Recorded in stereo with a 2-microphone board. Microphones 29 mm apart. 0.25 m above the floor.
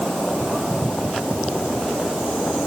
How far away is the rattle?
No rattle in this recording.